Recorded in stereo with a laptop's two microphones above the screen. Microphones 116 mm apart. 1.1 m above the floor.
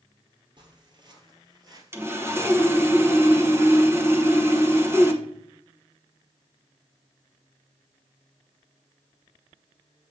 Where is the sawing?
25° right (ahead or behind), 1.0 m.